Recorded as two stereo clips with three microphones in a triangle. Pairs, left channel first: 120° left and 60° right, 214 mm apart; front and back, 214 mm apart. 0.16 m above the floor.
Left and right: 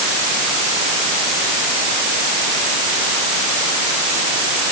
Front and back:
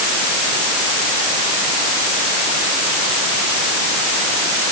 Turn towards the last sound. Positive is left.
No sound to turn to.